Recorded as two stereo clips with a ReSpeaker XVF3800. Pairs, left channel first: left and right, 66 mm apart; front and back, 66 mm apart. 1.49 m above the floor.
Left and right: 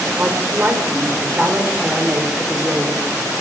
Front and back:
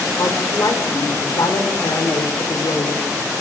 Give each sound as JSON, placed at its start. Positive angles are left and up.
{"t": 0.2, "sound": "a woman speaking", "azimuth_deg": -30, "distance_m": 5.0}